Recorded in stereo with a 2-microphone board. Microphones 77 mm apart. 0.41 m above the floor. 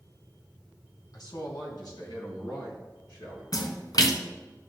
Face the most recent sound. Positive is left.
turn(degrees=55)  # may be behind; listen again after turning